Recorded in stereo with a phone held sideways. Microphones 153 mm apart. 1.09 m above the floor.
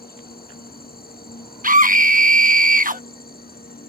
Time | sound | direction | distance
0.0 | an insect | 85° left | ?
1.6 | a scream | 65° right (ahead or behind) | ?